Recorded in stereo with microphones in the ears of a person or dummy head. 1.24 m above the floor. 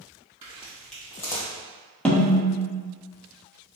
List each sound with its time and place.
0.4 s footsteps: 15° right (ahead or behind), 2.0 m; by 1.5 s 20° left (ahead or behind), 2 m
2.0 s a snare drum: 5° left (ahead or behind), 1.0 m